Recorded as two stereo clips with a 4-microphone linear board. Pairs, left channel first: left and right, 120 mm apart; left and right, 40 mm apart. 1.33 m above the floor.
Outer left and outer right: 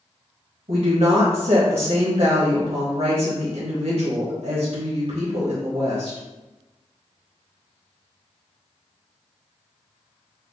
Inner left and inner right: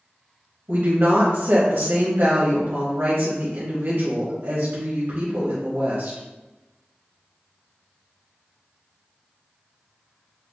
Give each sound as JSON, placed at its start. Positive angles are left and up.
{"t": 0.7, "sound": "a woman speaking", "side_deg": -75, "distance_m": 1.1}